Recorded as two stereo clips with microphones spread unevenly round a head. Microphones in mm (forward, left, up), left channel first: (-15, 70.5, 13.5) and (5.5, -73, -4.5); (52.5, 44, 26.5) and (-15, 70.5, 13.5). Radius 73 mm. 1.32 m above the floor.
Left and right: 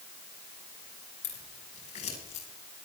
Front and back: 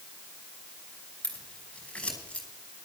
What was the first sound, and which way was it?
Scissors, 55° left.